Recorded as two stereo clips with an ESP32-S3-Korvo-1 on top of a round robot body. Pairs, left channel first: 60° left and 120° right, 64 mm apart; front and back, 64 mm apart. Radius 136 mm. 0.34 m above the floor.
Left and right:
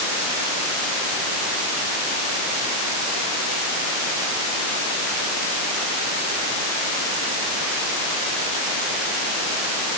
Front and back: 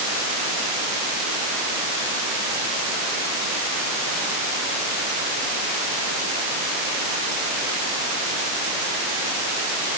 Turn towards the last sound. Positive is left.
No sound to turn to.